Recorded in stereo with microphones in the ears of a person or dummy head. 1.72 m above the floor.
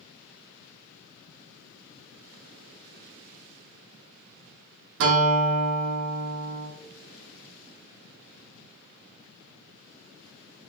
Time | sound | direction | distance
5.0 | a guitar | 65° right (ahead or behind) | 0.8 m